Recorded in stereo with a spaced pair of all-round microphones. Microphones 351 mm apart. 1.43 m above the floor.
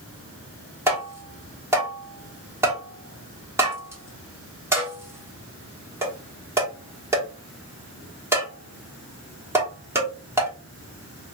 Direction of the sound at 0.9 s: 5° right (ahead or behind).